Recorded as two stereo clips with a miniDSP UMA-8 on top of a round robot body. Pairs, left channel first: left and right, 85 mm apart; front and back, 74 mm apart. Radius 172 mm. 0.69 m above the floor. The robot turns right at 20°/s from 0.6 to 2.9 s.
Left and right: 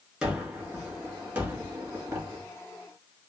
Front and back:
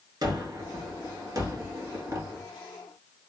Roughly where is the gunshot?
Behind.